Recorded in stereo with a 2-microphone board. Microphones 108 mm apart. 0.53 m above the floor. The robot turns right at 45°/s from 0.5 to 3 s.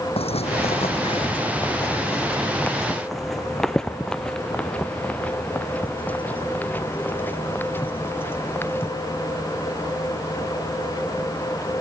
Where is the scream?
No scream in this recording.